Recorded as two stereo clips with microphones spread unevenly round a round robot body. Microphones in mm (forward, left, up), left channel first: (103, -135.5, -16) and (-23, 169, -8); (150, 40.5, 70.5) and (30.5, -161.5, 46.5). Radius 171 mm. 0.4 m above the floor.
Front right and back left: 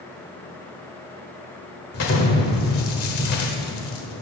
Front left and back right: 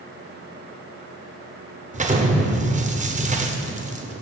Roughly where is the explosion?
Right.